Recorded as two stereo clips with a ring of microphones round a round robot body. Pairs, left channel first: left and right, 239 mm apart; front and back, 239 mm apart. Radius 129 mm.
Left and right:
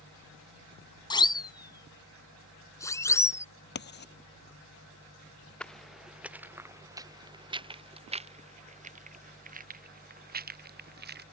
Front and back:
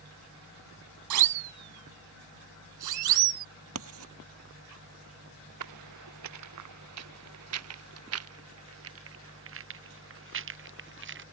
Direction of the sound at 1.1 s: 160° left.